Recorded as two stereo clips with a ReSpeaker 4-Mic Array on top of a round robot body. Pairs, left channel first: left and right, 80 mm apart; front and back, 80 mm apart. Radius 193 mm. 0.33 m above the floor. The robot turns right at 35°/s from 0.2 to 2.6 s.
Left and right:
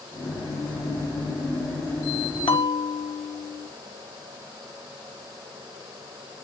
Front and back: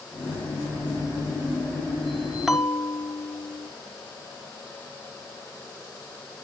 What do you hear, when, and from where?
2.5 s a bell: 95° left, 0.9 m; by 3.7 s 100° left, 0.9 m